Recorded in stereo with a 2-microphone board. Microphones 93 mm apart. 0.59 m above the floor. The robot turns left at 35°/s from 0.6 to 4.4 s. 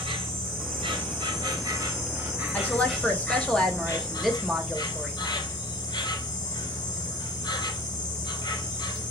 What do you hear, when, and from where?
0.0 s an insect: 105° right, 2 m; by 9.1 s 125° left, 2 m
2.5 s a woman speaking: 15° left (ahead or behind), 0.9 m; by 5.3 s centre (ahead or behind), 0.9 m